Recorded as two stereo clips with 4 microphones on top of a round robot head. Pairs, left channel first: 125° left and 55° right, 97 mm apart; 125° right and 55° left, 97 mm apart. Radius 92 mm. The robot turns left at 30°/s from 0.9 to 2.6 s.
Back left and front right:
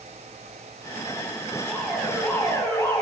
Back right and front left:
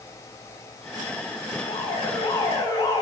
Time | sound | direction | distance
1.6 | an alarm | 145° right | 7.5 m